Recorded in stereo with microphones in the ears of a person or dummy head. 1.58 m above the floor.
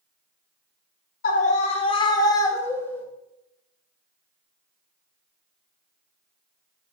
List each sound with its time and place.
1.2 s a scream: 50° left (ahead or behind), 1.8 m; by 3.0 s 10° left (ahead or behind), 3 m